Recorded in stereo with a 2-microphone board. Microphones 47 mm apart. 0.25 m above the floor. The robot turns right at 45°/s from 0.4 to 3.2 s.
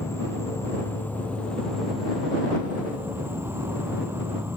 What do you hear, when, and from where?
0.0 s an insect: 110° left; by 4.6 s 125° right